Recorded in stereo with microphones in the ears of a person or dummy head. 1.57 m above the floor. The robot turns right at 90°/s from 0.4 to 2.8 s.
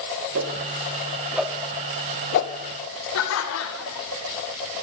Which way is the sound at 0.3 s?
65° right (ahead or behind).